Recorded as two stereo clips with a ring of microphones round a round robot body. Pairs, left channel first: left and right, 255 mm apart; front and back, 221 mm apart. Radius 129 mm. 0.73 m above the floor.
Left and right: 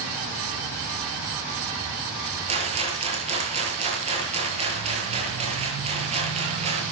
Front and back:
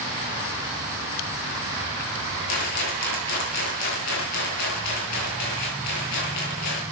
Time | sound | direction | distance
2.5 | a rattle | 25° right | 8.5 m